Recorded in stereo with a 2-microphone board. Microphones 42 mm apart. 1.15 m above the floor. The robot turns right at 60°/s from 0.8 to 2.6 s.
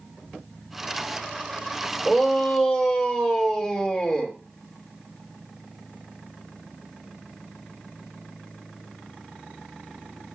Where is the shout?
35° right, 2.5 m; by 4.4 s straight ahead, 2.5 m.